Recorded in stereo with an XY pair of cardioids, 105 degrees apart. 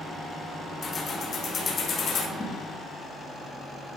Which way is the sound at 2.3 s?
15° left.